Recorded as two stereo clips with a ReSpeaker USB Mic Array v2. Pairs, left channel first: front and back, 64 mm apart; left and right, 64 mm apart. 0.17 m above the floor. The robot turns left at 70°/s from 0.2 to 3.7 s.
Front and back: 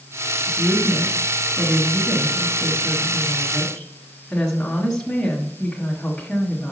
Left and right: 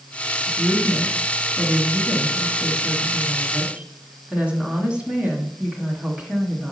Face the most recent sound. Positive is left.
turn(degrees=-60)